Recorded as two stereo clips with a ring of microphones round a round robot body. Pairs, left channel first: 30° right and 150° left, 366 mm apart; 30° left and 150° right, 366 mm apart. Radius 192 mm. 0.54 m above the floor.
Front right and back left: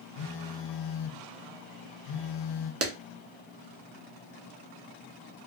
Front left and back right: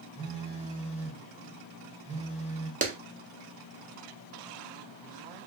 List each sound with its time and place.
0.2 s a phone buzzing: 45° right, 0.7 m
2.8 s a clap: 155° left, 0.9 m